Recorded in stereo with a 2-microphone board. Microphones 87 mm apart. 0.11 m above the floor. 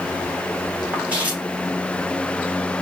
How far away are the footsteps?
About 2.5 m.